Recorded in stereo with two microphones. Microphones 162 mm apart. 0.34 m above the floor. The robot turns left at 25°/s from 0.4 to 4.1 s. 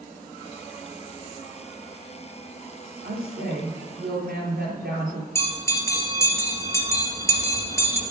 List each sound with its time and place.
3.0 s a woman speaking: 75° right (ahead or behind), 6 m; by 5.2 s 70° right (ahead or behind), 6 m
5.3 s a bell: 15° left (ahead or behind), 3.5 m